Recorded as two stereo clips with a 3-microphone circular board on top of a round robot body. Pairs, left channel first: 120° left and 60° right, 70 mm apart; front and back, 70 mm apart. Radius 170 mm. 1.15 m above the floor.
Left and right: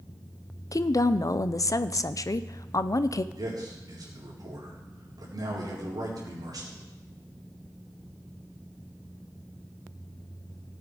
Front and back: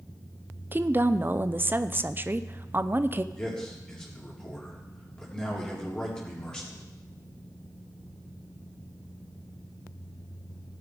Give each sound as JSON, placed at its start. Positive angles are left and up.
{"t": 0.7, "sound": "a woman speaking", "azimuth_deg": 130, "distance_m": 0.6}
{"t": 3.3, "sound": "a man speaking", "azimuth_deg": -80, "distance_m": 4.0}